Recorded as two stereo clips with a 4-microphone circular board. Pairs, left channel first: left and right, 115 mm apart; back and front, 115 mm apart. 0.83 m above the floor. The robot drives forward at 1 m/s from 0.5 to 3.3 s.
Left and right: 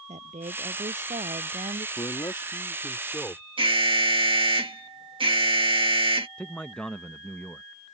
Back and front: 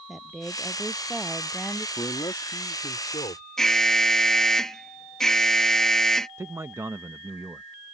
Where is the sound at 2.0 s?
125° left; by 3.5 s 155° left.